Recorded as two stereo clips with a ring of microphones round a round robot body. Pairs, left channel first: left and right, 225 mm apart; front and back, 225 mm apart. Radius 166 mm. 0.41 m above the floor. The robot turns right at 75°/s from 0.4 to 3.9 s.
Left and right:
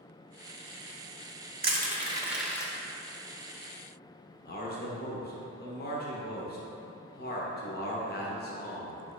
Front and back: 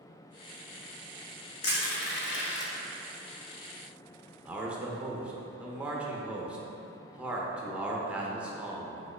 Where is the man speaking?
95° left, 0.9 m.